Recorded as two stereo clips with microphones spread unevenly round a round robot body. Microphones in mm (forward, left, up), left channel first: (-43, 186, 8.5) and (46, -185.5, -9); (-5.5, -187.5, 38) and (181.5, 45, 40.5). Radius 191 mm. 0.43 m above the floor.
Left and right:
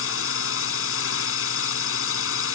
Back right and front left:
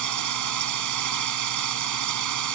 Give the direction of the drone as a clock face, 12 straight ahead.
10 o'clock.